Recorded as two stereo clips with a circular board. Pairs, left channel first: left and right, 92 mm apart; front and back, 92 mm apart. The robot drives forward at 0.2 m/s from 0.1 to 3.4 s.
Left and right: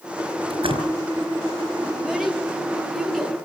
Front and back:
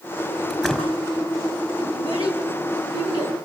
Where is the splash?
90° right, 4.5 m.